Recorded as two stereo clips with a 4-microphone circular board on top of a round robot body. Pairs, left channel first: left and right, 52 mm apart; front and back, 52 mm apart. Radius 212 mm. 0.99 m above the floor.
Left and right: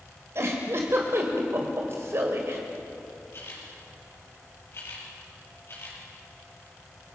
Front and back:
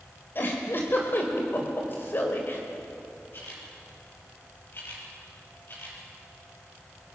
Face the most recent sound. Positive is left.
turn(degrees=45)